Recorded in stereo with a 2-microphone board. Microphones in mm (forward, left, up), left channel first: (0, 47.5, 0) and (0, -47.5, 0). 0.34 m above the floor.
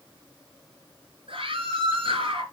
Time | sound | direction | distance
1.3 | a scream | 70° right (ahead or behind) | 3.5 m